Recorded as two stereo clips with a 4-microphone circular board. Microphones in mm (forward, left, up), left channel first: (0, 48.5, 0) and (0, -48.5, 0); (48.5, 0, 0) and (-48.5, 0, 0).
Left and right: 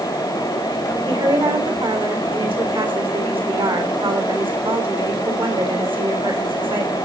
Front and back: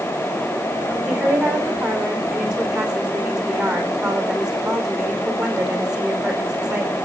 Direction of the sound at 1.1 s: 95° right.